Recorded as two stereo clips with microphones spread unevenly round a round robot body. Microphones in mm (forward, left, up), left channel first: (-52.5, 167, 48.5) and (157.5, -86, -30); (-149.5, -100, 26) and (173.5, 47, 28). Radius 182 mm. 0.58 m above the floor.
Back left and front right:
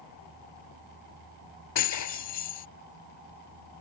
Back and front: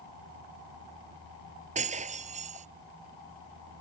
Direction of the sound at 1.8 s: 95° left.